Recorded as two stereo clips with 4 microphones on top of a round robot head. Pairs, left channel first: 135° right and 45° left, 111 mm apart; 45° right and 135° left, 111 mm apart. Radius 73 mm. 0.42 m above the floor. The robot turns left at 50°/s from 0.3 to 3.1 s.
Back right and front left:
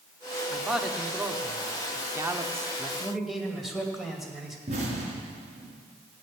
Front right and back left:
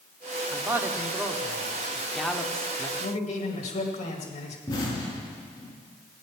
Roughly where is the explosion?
Ahead.